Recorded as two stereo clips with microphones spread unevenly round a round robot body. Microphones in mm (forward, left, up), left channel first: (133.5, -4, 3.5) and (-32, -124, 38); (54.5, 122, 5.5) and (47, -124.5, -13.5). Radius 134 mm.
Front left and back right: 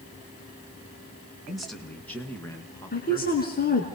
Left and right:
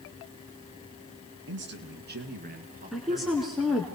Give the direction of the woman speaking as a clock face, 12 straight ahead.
12 o'clock.